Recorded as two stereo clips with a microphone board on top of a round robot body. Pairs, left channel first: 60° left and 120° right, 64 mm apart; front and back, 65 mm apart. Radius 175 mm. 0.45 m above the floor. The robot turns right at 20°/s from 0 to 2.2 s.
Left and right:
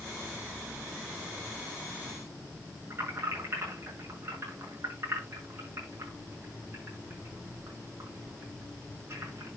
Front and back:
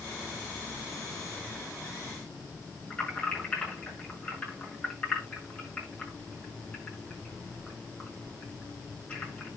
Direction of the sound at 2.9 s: 70° right.